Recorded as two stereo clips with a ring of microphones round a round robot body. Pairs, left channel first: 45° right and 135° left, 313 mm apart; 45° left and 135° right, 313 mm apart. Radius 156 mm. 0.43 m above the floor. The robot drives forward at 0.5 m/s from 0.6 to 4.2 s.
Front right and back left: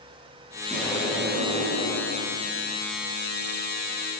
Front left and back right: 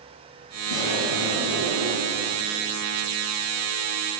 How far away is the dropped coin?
I don't hear a dropped coin.